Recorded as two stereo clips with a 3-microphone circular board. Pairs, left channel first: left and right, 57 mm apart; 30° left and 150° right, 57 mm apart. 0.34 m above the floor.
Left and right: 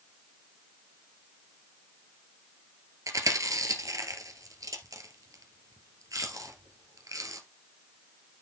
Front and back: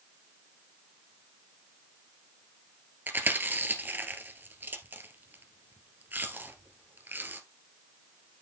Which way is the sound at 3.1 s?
95° right.